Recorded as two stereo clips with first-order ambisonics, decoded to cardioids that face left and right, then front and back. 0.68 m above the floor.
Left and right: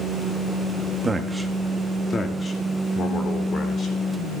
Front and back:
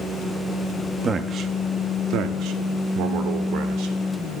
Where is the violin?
I don't hear a violin.